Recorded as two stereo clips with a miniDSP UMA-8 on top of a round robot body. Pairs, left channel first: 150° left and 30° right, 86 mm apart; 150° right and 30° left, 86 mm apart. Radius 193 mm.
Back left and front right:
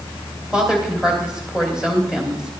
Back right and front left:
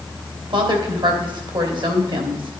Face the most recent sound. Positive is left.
turn(degrees=50)